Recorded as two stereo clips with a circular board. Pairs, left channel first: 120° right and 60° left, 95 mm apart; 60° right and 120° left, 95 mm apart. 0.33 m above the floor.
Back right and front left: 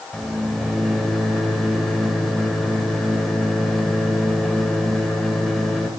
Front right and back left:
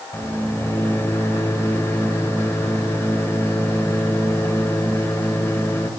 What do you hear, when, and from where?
0.1 s a microwave: 30° right, 1.2 m